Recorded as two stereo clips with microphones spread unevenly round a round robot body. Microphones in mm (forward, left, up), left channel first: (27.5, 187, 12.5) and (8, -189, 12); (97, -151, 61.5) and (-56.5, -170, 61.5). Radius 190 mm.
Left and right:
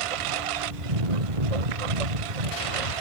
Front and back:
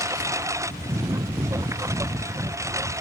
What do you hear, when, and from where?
0.0 s a lawn mower: 100° right